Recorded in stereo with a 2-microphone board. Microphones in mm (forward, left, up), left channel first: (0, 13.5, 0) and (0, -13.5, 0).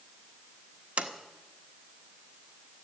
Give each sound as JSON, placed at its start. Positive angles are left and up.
{"t": 1.0, "sound": "a sliding door", "side_deg": -60, "distance_m": 1.4}